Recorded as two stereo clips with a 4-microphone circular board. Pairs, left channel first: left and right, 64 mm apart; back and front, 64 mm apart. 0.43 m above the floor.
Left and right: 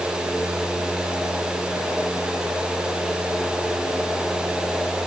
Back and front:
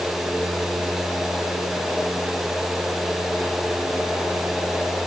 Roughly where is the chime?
I don't hear a chime.